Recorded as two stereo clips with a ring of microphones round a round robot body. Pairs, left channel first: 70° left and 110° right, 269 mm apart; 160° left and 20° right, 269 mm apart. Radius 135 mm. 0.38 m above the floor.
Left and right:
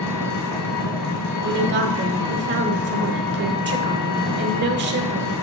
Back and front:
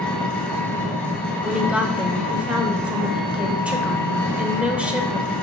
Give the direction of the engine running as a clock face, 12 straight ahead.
10 o'clock.